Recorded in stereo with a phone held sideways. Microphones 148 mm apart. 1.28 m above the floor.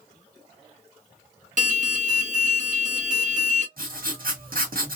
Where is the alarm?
60° right (ahead or behind), 0.9 m.